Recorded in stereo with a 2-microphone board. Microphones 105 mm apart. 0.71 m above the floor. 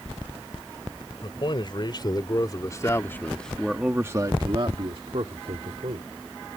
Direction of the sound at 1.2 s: 50° left (ahead or behind).